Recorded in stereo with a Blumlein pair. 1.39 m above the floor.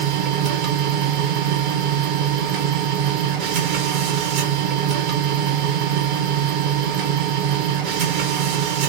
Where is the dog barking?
I don't hear a dog barking.